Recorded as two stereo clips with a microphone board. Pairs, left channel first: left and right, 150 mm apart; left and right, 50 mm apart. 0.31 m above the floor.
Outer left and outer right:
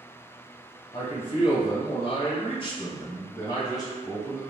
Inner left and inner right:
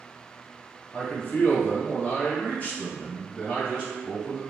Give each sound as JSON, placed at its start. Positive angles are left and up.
{"t": 0.9, "sound": "a man speaking", "side_deg": 35, "distance_m": 1.5}